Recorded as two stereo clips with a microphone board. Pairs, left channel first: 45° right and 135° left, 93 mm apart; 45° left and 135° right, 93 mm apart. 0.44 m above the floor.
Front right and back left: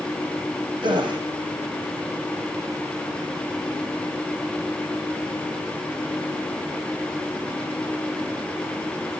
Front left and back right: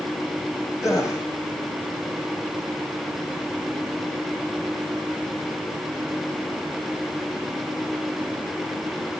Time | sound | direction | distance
0.8 | a gasp | 100° left | 4 m